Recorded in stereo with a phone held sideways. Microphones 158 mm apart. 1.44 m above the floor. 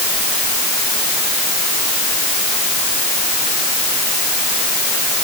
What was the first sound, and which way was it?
Only background noise.